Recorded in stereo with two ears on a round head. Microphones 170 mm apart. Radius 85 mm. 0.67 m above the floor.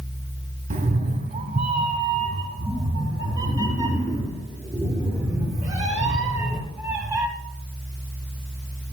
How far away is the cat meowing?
About 1.4 m.